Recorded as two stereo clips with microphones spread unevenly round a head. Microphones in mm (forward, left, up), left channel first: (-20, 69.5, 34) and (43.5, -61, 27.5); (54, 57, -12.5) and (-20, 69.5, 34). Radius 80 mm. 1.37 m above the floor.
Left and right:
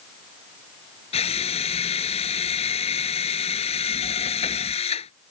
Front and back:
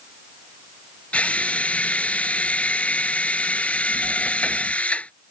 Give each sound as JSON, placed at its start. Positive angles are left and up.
{"t": 1.1, "sound": "a drill", "azimuth_deg": 65}